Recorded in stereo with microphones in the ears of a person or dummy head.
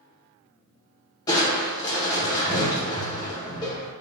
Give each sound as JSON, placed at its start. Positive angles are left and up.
{"t": 1.3, "sound": "crushing", "side_deg": 15, "distance_m": 0.7}